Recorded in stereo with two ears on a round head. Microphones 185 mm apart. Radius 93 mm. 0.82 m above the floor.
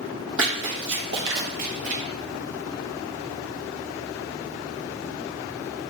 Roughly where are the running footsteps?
Right.